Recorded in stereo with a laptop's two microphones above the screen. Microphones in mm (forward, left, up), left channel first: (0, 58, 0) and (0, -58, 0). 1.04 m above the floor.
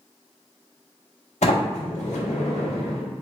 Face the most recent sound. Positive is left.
turn(degrees=80)